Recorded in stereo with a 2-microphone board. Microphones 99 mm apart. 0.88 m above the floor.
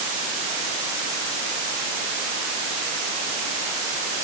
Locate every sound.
Only background noise.